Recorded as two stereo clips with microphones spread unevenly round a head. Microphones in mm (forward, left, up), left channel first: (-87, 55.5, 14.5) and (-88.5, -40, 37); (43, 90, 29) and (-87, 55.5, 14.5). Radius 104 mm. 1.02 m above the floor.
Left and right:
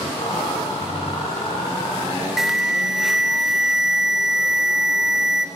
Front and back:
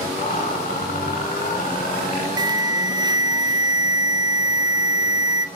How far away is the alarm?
About 1.7 m.